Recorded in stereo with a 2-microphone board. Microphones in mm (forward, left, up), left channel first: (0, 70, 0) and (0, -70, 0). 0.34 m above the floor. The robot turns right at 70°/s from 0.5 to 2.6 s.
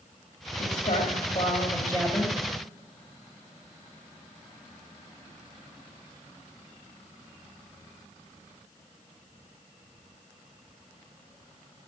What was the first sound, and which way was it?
A woman speaking, 80° left.